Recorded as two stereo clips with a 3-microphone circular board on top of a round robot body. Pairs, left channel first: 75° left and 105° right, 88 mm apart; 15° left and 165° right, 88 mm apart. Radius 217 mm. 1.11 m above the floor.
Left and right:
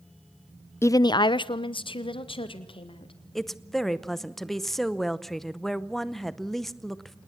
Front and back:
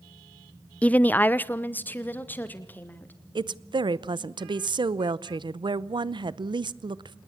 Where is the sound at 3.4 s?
160° left, 0.9 m.